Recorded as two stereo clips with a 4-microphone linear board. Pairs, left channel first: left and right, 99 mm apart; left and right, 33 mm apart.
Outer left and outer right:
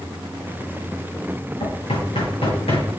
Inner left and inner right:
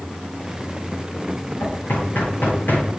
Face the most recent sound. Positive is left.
turn(degrees=85)